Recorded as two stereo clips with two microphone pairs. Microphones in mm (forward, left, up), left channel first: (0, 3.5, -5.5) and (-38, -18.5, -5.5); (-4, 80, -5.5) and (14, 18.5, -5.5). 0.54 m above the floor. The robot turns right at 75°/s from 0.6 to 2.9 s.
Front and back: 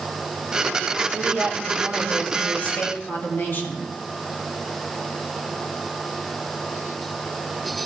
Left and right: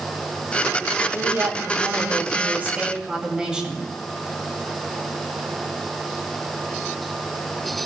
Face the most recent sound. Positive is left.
turn(degrees=5)